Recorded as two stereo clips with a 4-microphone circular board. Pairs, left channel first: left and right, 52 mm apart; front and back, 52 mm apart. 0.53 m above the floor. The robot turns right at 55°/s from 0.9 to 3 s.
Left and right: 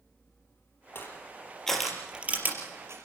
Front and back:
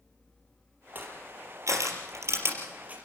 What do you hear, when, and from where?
0.9 s crushing: 130° left, 4 m; by 3.0 s 115° right, 4 m